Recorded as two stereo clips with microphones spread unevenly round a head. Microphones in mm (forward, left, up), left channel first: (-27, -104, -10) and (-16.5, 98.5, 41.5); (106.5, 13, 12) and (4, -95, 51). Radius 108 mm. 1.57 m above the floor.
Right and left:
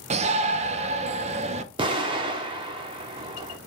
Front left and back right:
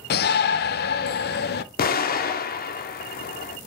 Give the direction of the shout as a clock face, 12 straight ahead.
11 o'clock.